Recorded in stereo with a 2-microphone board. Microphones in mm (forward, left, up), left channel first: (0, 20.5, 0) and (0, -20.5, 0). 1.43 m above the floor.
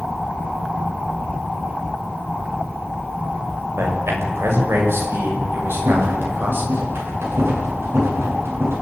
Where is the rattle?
80° right, 8.5 m.